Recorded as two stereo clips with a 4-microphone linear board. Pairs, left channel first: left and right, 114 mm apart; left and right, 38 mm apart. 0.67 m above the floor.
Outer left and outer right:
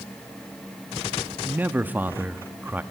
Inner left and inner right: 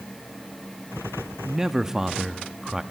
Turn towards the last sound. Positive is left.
turn(degrees=-15)  # may be behind; listen again after turning